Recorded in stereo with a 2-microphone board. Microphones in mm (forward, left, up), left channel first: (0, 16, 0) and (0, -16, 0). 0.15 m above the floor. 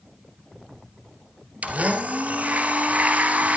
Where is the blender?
50° right (ahead or behind), 2.0 m.